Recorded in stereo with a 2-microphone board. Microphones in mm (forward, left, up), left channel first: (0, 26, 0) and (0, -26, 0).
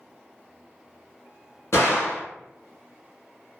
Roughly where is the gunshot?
Left.